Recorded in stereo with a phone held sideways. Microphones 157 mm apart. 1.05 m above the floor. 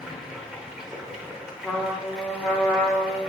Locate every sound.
0.0 s running water: 5° right (ahead or behind), 0.8 m
1.6 s a trumpet: 10° left (ahead or behind), 1.2 m